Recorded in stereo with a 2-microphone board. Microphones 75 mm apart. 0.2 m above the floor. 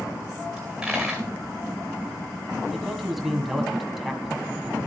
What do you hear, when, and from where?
0.6 s a dropped coin: 5° right (ahead or behind), 1.7 m
2.7 s a man speaking: centre (ahead or behind), 1.4 m